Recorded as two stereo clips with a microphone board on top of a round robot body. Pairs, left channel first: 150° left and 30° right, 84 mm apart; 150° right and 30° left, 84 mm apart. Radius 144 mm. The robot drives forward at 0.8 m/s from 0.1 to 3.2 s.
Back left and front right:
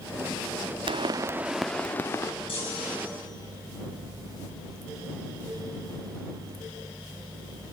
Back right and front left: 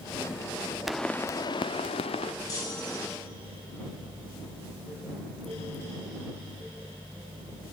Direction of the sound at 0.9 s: 55° right.